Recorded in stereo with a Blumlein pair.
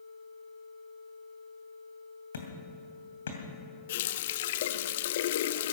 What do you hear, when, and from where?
2.3 s hammering: 65° left, 2.5 m
3.9 s a running tap: 55° left, 0.5 m